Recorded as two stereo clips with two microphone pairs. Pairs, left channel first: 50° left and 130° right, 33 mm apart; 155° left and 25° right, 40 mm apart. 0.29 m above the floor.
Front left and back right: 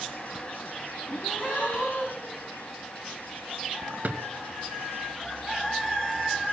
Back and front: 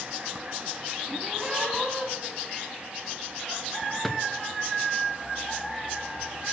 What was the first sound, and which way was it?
A gasp, 55° left.